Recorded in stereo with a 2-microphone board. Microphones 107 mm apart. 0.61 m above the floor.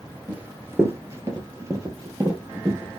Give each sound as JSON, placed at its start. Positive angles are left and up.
{"t": 0.3, "sound": "running footsteps", "side_deg": -15, "distance_m": 0.7}